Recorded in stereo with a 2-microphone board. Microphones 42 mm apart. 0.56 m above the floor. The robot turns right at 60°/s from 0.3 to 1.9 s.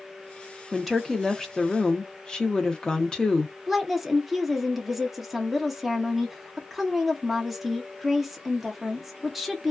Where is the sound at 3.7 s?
5° right (ahead or behind), 0.6 m.